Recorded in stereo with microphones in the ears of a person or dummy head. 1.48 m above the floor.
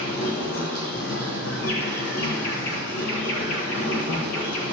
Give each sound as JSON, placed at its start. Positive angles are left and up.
{"t": 0.0, "sound": "an insect", "side_deg": 65, "distance_m": 1.7}